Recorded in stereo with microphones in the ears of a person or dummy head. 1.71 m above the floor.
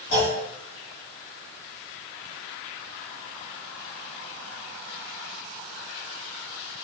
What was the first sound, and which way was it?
A clunk, 55° left (ahead or behind).